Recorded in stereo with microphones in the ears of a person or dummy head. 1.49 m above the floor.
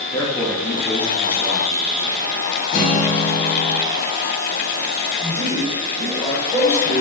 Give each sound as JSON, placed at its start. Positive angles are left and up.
{"t": 0.1, "sound": "a man speaking", "side_deg": 15, "distance_m": 0.8}
{"t": 2.7, "sound": "a guitar", "side_deg": 45, "distance_m": 0.9}
{"t": 5.2, "sound": "a man speaking", "side_deg": -10, "distance_m": 2.0}